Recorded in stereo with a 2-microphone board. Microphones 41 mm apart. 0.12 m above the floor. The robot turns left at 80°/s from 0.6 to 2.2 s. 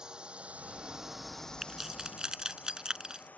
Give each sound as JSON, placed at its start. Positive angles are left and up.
{"t": 0.0, "sound": "a drone", "side_deg": -20}
{"t": 1.6, "sound": "keys jangling", "side_deg": -5}